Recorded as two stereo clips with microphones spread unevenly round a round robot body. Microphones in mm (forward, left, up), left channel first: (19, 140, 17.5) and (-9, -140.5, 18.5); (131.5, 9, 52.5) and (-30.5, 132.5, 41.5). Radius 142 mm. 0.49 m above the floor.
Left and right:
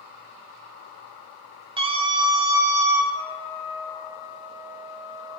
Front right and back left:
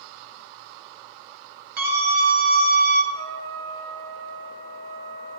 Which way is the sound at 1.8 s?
170° right.